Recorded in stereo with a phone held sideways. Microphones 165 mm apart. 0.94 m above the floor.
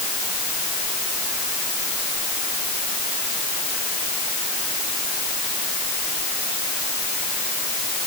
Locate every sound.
Only background noise.